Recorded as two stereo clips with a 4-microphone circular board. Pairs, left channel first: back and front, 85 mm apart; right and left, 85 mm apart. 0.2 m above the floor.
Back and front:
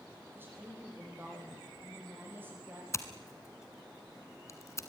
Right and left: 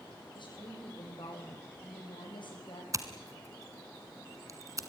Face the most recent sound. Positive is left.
turn(degrees=135)